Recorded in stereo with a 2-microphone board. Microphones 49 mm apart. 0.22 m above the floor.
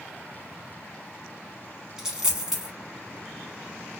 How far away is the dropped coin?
About 0.9 m.